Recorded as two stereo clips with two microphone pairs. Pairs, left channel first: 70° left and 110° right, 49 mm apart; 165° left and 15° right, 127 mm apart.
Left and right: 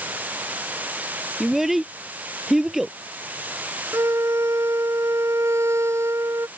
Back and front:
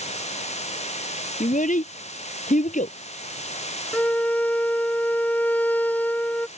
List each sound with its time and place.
0.0 s running water: 165° right
1.4 s a child speaking: 165° left
3.9 s a violin: 120° right